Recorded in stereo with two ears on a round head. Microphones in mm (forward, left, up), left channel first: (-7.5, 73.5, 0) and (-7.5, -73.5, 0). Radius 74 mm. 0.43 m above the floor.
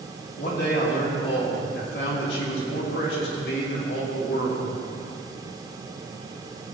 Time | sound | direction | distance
0.4 | a man speaking | 65° left (ahead or behind) | 3.5 m